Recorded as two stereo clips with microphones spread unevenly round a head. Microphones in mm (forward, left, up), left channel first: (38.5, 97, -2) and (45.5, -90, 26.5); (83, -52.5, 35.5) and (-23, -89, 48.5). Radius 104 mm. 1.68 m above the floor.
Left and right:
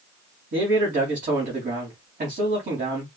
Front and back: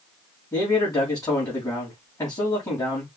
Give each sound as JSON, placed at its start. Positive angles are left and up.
{"t": 0.5, "sound": "a man speaking", "azimuth_deg": -40, "distance_m": 3.0}